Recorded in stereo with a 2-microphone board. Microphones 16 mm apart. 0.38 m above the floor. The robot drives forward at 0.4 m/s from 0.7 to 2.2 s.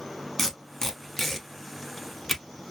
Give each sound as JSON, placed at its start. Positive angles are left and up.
{"t": 0.4, "sound": "tape being pulled", "side_deg": 35, "distance_m": 0.9}